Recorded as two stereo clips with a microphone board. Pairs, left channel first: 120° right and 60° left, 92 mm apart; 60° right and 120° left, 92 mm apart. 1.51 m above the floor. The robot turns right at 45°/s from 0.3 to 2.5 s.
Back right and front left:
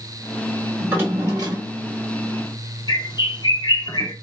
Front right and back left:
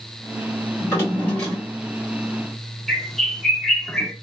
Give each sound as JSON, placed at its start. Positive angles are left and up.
{"t": 0.8, "sound": "a drawer", "azimuth_deg": -10, "distance_m": 1.8}
{"t": 2.9, "sound": "a bird", "azimuth_deg": -150, "distance_m": 0.8}